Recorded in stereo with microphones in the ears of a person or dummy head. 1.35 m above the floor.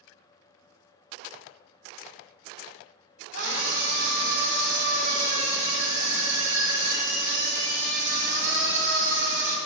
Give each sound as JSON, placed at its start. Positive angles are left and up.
{"t": 3.3, "sound": "a scream", "side_deg": -60, "distance_m": 2.0}